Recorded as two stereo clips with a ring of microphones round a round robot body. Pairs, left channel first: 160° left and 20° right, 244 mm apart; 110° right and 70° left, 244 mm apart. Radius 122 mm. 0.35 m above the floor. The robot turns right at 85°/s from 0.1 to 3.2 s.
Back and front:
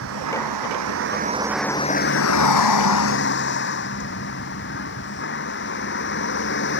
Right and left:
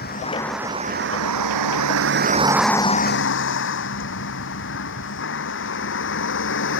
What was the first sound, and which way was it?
A vehicle, 60° right.